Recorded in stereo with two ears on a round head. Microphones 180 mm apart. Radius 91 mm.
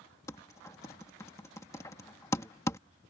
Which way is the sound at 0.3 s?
15° left (ahead or behind).